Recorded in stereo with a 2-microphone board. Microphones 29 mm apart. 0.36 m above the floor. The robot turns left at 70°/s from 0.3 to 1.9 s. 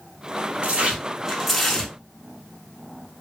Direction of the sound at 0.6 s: 110° right.